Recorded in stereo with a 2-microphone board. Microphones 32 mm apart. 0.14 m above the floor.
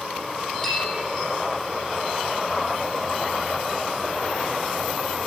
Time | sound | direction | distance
0.6 | a bell | 20° left (ahead or behind) | 6.5 m